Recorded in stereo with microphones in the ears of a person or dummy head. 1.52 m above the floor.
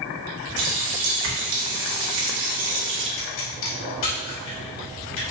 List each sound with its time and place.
0.6 s a running tap: 65° right (ahead or behind), 1.5 m
3.2 s a pop: 70° left (ahead or behind), 2.5 m